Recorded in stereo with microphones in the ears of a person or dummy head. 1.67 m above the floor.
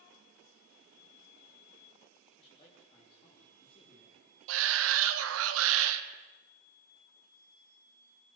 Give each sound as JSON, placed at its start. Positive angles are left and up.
{"t": 2.4, "sound": "a man speaking", "side_deg": 30, "distance_m": 3.5}
{"t": 4.5, "sound": "a shout", "side_deg": -80, "distance_m": 1.8}